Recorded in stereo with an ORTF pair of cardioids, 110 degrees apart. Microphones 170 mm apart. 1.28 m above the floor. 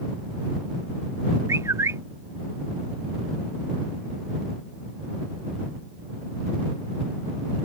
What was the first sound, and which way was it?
A bird, 15° right.